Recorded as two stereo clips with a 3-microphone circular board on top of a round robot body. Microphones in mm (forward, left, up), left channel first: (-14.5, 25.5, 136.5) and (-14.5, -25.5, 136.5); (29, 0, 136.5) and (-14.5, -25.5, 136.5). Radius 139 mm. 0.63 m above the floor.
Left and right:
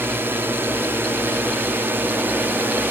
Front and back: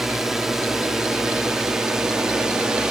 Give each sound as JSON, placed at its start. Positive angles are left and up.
{"t": 0.0, "sound": "a drone", "azimuth_deg": -65}